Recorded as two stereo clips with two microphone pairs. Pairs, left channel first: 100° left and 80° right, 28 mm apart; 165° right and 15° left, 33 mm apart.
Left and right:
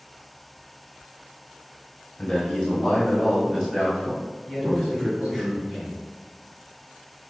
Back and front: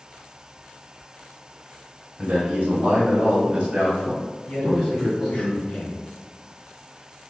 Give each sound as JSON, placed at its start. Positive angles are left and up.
{"t": 2.2, "sound": "a man speaking", "azimuth_deg": 50, "distance_m": 1.2}
{"t": 4.5, "sound": "a man speaking", "azimuth_deg": -150, "distance_m": 1.2}